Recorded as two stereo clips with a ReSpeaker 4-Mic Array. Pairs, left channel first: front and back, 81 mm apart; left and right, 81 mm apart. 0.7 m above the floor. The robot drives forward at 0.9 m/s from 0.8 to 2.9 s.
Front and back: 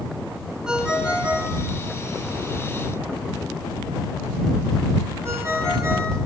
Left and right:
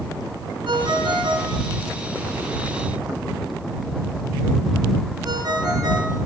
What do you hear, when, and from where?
0.7 s a ringtone: 100° right, 4 m; by 6.2 s 125° right, 4.5 m